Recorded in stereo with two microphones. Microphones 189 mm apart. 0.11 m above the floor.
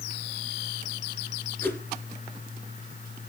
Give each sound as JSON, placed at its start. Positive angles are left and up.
{"t": 1.6, "sound": "a whoosh", "side_deg": 10, "distance_m": 1.6}